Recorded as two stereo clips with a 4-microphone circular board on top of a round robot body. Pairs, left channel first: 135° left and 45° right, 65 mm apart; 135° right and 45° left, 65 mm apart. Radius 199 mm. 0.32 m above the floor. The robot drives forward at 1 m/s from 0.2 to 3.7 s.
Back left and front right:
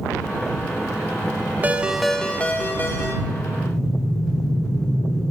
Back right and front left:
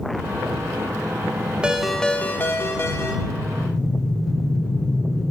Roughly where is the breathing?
Behind.